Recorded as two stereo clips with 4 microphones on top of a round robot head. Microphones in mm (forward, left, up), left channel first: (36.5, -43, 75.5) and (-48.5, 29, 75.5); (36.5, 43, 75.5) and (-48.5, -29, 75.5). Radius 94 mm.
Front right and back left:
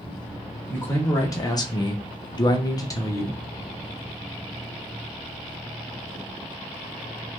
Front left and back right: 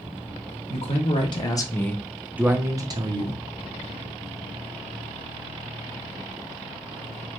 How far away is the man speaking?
About 1.1 m.